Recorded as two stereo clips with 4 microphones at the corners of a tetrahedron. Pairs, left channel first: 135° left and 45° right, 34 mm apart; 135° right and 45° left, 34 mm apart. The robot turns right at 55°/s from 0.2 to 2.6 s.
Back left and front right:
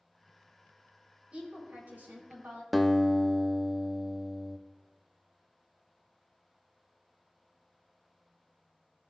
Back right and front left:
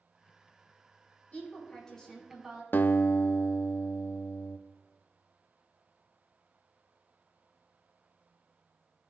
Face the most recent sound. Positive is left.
turn(degrees=-135)